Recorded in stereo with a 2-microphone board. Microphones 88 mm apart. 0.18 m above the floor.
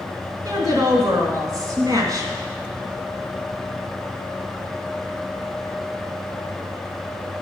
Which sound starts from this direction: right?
A woman speaking, at 0.5 s.